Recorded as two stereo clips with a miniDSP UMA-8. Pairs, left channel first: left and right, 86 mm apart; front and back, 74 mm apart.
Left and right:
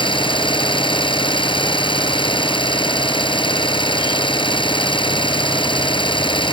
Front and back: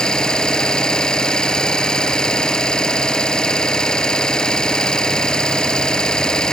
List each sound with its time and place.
0.0 s an engine running: 80° left